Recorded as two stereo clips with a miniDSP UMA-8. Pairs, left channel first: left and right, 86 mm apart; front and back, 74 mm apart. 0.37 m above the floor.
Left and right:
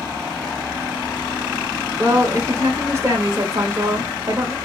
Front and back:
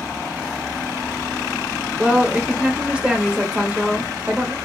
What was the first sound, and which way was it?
A woman speaking, 115° right.